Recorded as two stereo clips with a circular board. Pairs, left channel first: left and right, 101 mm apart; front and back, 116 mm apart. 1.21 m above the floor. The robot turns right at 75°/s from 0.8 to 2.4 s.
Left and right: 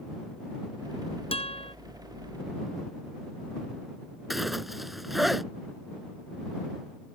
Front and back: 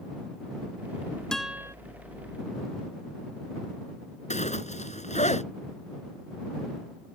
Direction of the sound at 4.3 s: Straight ahead.